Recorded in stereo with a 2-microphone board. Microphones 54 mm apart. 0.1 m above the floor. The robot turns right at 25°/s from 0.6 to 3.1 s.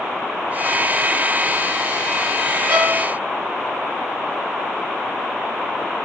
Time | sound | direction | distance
2.7 | a violin | 35° right (ahead or behind) | 3 m